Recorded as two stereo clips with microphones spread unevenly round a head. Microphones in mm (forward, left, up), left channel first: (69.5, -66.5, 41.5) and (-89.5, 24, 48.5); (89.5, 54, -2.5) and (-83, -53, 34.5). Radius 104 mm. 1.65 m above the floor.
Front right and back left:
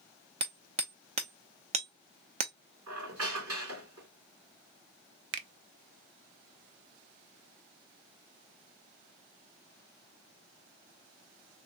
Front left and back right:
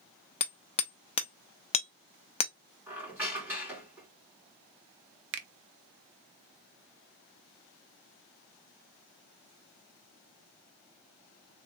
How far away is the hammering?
About 0.6 m.